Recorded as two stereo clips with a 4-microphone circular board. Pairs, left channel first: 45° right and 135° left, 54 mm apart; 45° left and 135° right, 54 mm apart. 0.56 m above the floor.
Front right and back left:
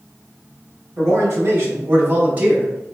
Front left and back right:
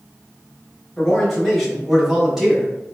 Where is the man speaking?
130° left, 1.6 m; by 2.9 s 145° right, 0.8 m.